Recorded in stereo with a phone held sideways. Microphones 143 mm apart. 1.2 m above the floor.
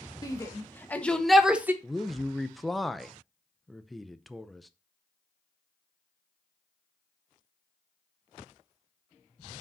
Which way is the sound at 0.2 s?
25° left (ahead or behind).